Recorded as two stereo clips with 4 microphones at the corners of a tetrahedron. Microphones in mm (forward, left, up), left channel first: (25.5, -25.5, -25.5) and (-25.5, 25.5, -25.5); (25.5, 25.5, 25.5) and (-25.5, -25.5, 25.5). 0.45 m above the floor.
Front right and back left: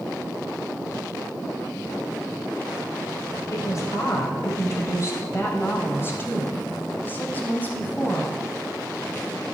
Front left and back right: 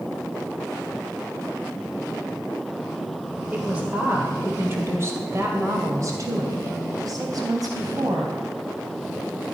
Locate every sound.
3.5 s a woman speaking: 65° right, 1.8 m; by 8.4 s 115° right, 3.5 m